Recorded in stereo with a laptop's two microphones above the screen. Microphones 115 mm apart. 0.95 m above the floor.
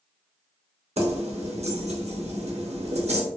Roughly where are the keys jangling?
Right.